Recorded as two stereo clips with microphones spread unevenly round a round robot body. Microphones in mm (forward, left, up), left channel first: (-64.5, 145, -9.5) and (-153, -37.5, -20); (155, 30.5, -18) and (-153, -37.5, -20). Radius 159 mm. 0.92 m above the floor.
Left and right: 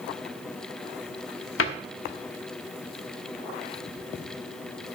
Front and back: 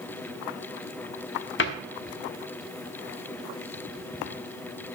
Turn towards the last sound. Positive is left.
turn(degrees=65)